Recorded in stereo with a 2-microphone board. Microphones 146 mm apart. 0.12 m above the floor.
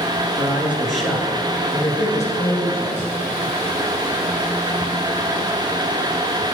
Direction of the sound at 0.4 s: 20° right (ahead or behind).